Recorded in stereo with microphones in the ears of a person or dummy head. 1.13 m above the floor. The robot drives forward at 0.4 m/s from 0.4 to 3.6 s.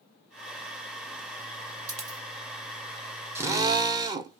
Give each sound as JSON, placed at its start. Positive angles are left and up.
{"t": 1.9, "sound": "a dropped coin", "side_deg": -45, "distance_m": 1.8}
{"t": 3.4, "sound": "a drill", "side_deg": -15, "distance_m": 0.7}